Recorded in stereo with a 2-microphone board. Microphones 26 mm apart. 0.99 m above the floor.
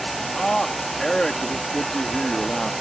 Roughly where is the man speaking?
Left.